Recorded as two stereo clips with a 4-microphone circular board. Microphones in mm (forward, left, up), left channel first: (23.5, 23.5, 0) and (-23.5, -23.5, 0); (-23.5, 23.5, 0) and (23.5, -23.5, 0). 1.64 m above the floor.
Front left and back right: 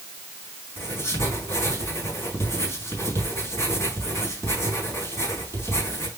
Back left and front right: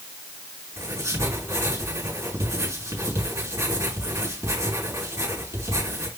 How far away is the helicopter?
I don't hear a helicopter.